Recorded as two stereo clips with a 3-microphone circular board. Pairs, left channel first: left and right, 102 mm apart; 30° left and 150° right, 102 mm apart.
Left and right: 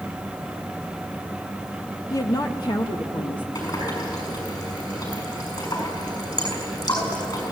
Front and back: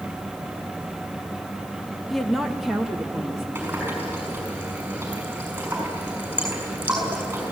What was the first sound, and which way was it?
A woman speaking, 120° left.